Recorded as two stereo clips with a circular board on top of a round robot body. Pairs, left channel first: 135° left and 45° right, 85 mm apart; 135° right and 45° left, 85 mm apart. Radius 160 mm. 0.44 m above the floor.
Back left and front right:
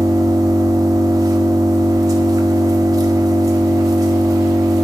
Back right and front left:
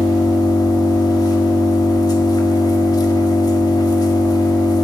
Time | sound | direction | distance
0.0 | an engine running | 95° right | 1.6 m